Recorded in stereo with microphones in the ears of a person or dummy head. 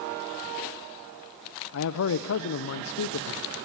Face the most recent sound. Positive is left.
turn(degrees=65)  # may be behind; listen again after turning